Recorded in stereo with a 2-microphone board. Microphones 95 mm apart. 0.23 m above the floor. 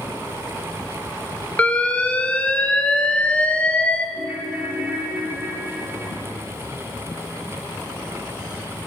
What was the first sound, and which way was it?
An alarm, 15° left (ahead or behind).